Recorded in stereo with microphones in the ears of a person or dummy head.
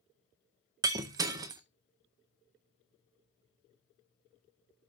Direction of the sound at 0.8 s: 20° right (ahead or behind).